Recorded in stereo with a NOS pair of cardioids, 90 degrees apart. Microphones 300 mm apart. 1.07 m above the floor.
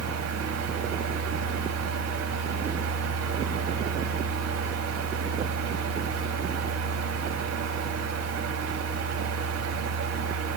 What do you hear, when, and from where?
0.0 s a fan: 60° right, 2.5 m